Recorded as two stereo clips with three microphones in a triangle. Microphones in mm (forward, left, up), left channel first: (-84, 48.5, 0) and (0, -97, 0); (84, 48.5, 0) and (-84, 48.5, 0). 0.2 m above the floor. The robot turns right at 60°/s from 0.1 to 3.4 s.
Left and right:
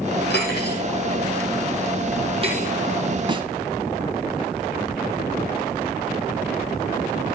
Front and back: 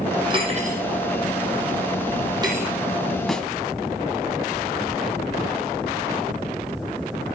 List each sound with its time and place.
0.3 s cutlery clinking: 115° left, 3.5 m; by 2.7 s 100° right, 3.5 m
3.3 s a snare drum: 85° right, 1.1 m; by 3.5 s 80° right, 1.1 m